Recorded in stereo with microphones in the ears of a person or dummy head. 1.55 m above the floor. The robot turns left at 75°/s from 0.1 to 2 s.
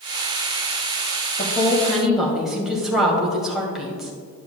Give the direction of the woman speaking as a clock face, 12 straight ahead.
11 o'clock.